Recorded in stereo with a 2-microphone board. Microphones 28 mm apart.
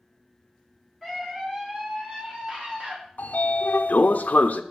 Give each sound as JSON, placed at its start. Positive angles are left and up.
{"t": 1.0, "sound": "a scream", "side_deg": 0, "distance_m": 2.0}
{"t": 3.2, "sound": "a sliding door", "side_deg": 75, "distance_m": 0.5}